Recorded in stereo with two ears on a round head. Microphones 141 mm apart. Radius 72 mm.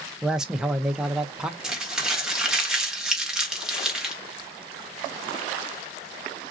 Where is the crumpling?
5° right (ahead or behind), 1.0 m.